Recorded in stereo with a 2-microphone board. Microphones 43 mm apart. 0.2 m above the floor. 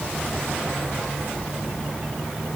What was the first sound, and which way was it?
Only background noise.